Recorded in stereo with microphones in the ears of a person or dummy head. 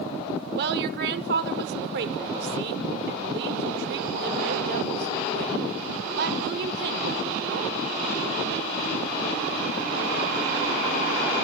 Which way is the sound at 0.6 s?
65° right (ahead or behind).